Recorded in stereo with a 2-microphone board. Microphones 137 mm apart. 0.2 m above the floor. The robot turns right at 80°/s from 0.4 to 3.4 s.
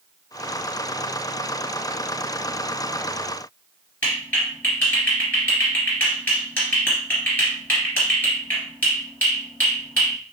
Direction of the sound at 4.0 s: 15° left (ahead or behind).